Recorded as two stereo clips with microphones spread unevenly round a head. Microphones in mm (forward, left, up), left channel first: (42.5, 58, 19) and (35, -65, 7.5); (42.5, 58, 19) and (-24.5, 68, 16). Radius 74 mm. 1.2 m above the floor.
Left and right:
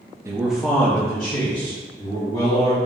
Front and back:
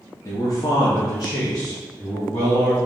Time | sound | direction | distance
0.2 | a man speaking | 40° right | 0.7 m